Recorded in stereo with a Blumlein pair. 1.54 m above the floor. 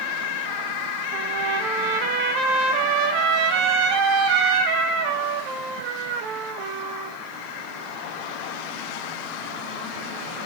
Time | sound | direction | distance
1.1 | a trumpet | 40° right | 1.7 m